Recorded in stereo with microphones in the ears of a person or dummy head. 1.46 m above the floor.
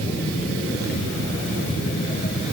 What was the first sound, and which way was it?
Only background noise.